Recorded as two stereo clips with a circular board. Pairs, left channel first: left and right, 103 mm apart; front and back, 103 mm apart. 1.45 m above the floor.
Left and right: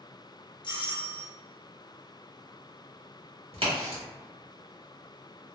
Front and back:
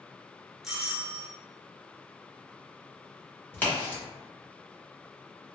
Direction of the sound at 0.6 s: 95° left.